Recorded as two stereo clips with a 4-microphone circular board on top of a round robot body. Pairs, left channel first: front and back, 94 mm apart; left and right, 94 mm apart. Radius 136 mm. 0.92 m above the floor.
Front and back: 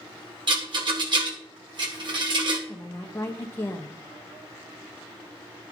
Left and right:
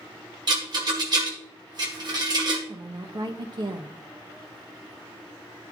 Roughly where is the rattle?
Behind right.